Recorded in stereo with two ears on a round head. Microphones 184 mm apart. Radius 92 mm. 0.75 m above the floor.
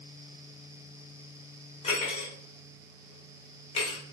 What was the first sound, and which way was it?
Cutlery clinking, 30° left (ahead or behind).